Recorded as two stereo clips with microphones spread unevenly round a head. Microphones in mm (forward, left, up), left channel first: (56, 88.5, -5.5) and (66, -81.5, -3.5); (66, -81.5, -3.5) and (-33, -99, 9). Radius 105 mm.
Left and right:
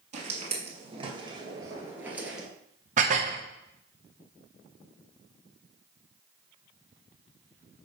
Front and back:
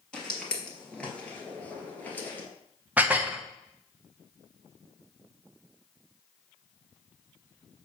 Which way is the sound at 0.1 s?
75° right.